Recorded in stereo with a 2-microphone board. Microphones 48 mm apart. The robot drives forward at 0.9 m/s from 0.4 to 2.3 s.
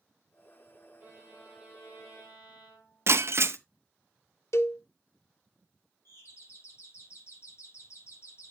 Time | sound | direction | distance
1.0 | a violin | 75° left (ahead or behind) | 7.5 m
3.1 | breaking glass | 55° right (ahead or behind) | 0.7 m
4.5 | a cowbell | 65° left (ahead or behind) | 0.7 m
6.0 | a doorbell | 65° left (ahead or behind) | 6.5 m